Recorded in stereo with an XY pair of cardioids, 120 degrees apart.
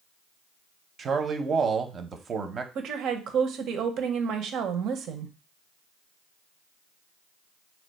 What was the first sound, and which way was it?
A man speaking, 40° right.